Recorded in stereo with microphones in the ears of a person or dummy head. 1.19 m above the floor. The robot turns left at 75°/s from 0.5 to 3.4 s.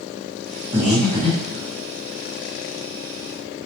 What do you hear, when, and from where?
0.7 s breathing: 15° right (ahead or behind), 0.8 m; by 1.6 s 50° left (ahead or behind), 0.8 m